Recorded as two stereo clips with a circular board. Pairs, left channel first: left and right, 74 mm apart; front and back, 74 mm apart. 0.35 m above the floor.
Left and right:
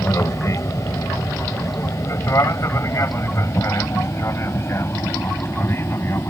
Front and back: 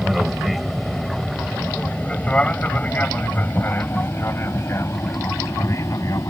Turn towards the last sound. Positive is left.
turn(degrees=40)